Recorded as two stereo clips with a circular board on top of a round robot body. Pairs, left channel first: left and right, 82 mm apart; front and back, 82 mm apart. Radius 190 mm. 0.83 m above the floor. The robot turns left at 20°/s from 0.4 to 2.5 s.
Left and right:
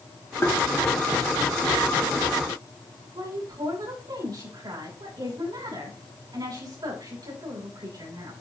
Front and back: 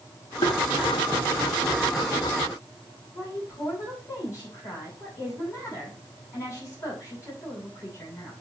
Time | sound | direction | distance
0.4 | tapping | 25° left | 1.3 m
3.1 | a woman speaking | 55° right | 8 m